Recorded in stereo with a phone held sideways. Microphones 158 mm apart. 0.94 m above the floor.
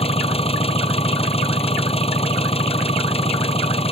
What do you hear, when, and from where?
0.0 s an engine running: 40° left (ahead or behind)